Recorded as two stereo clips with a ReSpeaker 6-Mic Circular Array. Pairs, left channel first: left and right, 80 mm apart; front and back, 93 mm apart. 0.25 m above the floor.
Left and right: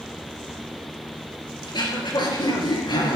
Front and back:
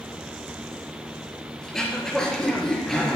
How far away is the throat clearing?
About 4.5 m.